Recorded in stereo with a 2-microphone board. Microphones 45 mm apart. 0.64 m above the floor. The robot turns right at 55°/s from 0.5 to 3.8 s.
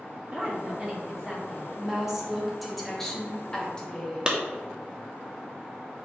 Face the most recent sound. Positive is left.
turn(degrees=-20)  # may be behind; listen again after turning